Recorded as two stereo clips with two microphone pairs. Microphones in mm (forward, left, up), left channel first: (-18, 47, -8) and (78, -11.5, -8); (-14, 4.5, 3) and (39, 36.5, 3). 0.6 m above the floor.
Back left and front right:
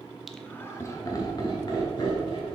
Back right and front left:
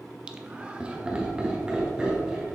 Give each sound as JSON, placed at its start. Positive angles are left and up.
{"t": 0.3, "sound": "laughter", "azimuth_deg": 55, "distance_m": 0.6}